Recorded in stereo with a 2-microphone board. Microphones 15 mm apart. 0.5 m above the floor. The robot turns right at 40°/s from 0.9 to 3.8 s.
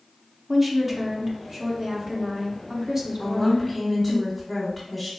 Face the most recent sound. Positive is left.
turn(degrees=5)  # may be behind; listen again after turning